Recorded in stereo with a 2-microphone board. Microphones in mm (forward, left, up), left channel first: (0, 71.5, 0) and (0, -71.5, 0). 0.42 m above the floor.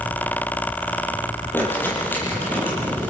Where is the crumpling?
15° left (ahead or behind), 8.5 m.